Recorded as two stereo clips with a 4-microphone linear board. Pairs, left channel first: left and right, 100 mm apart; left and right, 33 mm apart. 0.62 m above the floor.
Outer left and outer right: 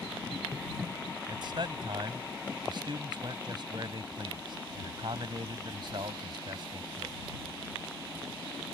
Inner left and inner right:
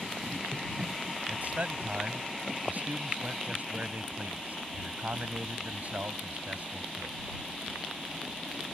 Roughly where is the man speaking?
Right.